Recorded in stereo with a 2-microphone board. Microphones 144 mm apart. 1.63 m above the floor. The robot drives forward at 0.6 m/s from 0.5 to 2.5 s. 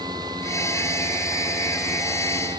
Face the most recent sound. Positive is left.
No sound to turn to.